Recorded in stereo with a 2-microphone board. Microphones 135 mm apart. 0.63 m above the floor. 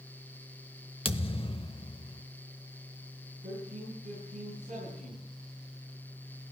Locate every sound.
1.1 s a thud: 40° left (ahead or behind), 0.7 m
3.4 s a man speaking: 75° right (ahead or behind), 6.5 m